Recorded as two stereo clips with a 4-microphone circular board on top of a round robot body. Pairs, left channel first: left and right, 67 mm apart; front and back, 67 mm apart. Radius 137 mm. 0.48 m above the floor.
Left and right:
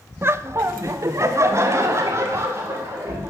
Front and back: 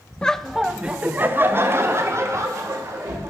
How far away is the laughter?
About 0.7 m.